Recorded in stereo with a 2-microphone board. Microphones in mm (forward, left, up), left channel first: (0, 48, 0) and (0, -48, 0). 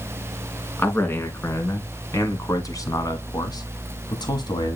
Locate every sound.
0.8 s a man speaking: 20° left (ahead or behind), 2.5 m; by 4.8 s 50° left (ahead or behind), 1.8 m